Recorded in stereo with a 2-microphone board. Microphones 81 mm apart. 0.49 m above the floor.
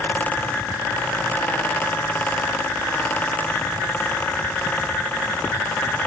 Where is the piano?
No piano in this recording.